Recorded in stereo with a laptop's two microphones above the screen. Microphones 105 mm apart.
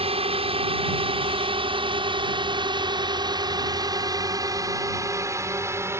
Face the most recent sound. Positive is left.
turn(degrees=-20)  # may be behind; listen again after turning